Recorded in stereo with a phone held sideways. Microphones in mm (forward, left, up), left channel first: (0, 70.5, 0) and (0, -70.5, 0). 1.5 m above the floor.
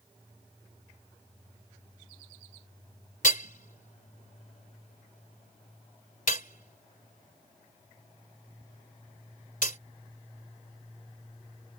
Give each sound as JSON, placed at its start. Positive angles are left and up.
{"t": 3.2, "sound": "hammering", "side_deg": 70}